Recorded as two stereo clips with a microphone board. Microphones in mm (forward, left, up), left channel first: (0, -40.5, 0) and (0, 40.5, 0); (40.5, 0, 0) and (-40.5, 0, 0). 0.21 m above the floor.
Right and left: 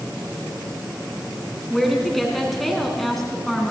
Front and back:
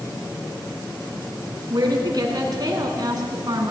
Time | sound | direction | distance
1.7 | a woman speaking | straight behind | 2.5 m